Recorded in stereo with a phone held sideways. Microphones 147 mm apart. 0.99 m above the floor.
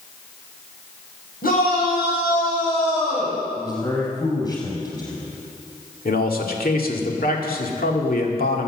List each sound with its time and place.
1.4 s a shout: 85° left, 5.5 m; by 3.4 s 80° left, 5.5 m
3.6 s a man speaking: 30° left (ahead or behind), 6.5 m
6.0 s a man speaking: 80° left, 2 m